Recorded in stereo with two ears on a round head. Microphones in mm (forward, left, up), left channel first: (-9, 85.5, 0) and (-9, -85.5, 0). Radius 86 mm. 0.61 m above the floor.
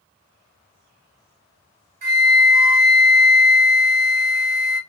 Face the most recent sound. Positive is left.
turn(degrees=-50)  # may be behind; listen again after turning